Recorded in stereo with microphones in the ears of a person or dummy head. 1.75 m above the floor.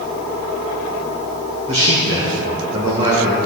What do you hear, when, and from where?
1.7 s a man speaking: 30° right (ahead or behind), 1.4 m